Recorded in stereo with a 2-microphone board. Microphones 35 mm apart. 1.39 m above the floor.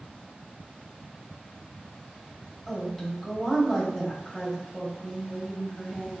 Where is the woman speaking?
15° left (ahead or behind), 1.6 m.